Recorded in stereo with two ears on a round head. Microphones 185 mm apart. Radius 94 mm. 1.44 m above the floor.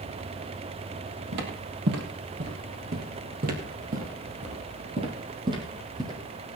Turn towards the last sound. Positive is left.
turn(degrees=-15)  # may be behind; listen again after turning